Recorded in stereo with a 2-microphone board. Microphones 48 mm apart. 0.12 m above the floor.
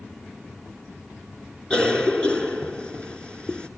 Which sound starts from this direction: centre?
A cough, at 1.7 s.